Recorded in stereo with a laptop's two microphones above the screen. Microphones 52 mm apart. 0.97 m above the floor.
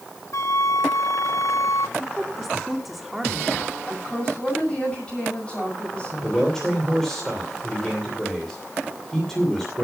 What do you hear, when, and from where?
0.3 s a flute: 70° left (ahead or behind), 0.7 m
2.0 s a woman speaking: 5° right (ahead or behind), 2.5 m
3.9 s a woman speaking: 20° left (ahead or behind), 6.5 m
6.2 s a man speaking: 5° left (ahead or behind), 2.5 m